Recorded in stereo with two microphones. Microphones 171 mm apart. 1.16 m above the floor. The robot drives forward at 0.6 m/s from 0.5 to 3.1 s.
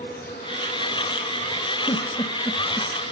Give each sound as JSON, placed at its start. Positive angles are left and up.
{"t": 0.0, "sound": "an insect", "side_deg": 75, "distance_m": 5.0}
{"t": 1.9, "sound": "a giggle", "side_deg": 30, "distance_m": 1.4}